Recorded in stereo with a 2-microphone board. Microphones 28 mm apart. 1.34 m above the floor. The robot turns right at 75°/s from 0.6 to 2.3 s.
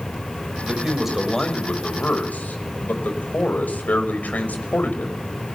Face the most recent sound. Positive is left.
turn(degrees=85)